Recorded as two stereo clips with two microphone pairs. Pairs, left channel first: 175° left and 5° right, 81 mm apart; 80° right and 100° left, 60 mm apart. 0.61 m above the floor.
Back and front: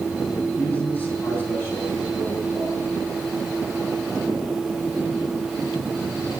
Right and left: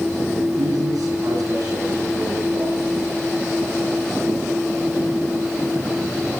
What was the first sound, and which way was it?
A man speaking, 115° left.